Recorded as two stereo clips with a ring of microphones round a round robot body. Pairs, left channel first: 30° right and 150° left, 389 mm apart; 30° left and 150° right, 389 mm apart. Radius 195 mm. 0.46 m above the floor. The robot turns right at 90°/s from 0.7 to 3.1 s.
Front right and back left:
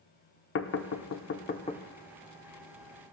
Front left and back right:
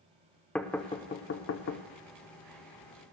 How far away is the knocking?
About 0.6 m.